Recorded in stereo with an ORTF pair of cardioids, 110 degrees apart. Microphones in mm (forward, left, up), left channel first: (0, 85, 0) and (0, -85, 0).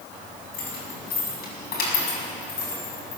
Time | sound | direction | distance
0.5 | keys jangling | 70° left | 6.5 m